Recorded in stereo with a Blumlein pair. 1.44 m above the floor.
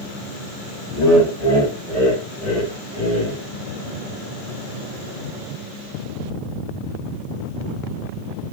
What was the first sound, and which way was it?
Laughter, 20° left.